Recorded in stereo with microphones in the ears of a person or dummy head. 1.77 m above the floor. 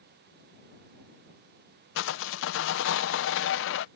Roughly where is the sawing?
Left.